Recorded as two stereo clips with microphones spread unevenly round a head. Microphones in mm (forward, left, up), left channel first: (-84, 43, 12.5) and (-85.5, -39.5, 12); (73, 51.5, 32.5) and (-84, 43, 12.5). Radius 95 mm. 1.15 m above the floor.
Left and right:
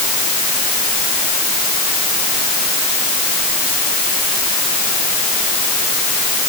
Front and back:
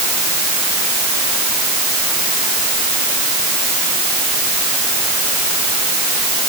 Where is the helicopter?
I don't hear a helicopter.